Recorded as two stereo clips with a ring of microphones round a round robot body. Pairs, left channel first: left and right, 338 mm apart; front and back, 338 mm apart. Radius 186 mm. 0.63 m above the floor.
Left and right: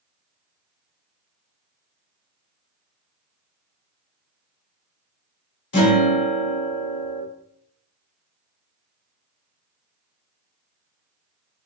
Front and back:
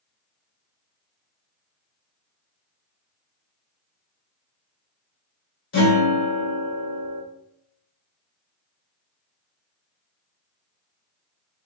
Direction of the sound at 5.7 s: 60° left.